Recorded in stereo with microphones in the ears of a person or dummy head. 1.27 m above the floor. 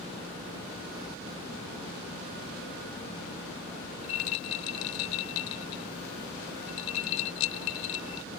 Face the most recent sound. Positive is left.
turn(degrees=80)